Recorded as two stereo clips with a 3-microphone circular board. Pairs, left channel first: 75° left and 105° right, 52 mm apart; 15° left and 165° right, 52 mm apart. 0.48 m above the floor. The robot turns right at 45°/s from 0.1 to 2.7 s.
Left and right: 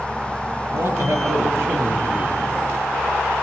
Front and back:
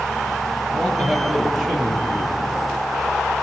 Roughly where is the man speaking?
Behind right.